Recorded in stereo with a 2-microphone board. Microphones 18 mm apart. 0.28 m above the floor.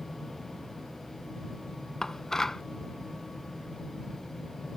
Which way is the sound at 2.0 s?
30° left (ahead or behind).